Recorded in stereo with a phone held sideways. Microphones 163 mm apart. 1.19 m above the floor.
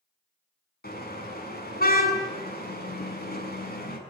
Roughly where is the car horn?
Left.